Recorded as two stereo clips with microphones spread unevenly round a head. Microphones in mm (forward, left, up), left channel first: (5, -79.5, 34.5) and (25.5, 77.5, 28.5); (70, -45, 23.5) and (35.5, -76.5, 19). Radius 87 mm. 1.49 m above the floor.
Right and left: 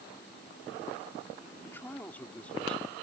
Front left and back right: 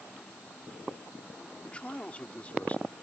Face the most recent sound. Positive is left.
turn(degrees=-15)